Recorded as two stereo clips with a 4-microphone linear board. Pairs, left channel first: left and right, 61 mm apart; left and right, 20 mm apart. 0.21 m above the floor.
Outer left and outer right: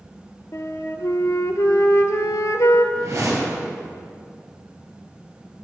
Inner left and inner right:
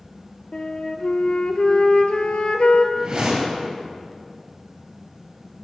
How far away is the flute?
About 0.7 m.